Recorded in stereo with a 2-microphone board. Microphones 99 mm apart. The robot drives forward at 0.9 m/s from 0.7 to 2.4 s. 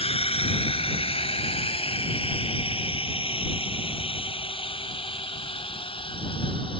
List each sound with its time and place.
0.0 s a drone: 75° left (ahead or behind); by 6.8 s 60° left (ahead or behind)